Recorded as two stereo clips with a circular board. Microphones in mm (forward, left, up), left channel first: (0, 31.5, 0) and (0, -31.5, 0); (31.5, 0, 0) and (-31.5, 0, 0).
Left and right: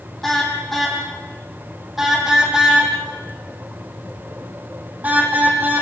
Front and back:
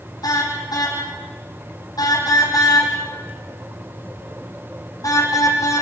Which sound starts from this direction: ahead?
A car horn, at 0.2 s.